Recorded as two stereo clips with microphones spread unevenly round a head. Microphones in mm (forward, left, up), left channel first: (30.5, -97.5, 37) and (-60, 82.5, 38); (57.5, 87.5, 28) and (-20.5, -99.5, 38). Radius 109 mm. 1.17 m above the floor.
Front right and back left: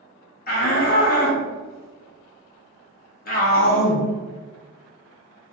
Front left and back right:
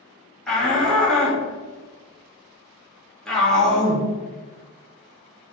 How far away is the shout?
About 1.5 m.